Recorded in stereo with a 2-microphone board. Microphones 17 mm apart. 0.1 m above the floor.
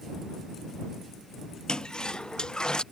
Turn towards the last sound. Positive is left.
turn(degrees=55)  # may be behind; listen again after turning